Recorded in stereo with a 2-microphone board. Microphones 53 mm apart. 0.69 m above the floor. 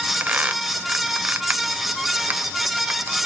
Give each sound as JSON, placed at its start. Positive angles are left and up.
{"t": 0.2, "sound": "a squeak", "side_deg": -30, "distance_m": 0.9}